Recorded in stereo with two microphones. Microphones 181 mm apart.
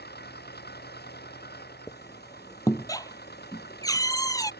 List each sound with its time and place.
0.0 s an engine running: 65° left (ahead or behind)
1.9 s a squeak: 20° left (ahead or behind)